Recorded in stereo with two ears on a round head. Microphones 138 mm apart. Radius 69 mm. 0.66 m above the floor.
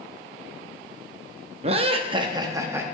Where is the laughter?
40° right (ahead or behind), 0.7 m; by 2.9 s 15° right (ahead or behind), 0.7 m.